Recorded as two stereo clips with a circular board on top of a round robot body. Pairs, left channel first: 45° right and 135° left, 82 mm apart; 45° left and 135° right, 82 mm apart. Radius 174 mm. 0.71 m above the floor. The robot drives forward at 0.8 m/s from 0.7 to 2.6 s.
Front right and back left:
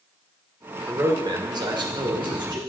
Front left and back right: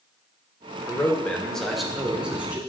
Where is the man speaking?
90° left, 1.0 m; by 2.6 s 150° left, 1.7 m.